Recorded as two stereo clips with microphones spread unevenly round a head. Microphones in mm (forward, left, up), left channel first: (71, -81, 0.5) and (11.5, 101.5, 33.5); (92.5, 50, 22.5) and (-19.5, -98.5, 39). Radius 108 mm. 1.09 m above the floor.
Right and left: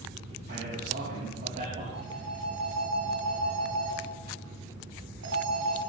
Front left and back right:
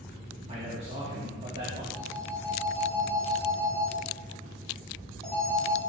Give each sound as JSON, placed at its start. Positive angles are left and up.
{"t": 0.5, "sound": "a man speaking", "azimuth_deg": 170, "distance_m": 3.0}
{"t": 1.9, "sound": "a phone ringing", "azimuth_deg": 150, "distance_m": 5.5}